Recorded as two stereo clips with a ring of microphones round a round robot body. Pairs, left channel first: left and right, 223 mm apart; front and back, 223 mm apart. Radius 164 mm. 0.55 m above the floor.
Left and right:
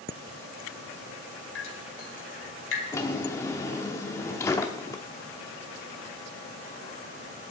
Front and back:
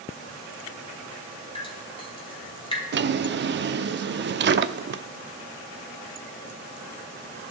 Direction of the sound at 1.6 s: 65° left.